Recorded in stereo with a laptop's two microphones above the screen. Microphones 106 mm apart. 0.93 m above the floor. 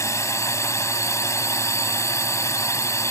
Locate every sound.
0.0 s a drone: 30° left (ahead or behind)